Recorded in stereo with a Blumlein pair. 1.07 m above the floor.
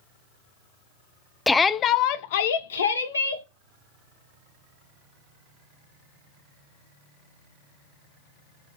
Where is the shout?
5° left, 0.5 m; by 3.5 s 80° left, 1.1 m.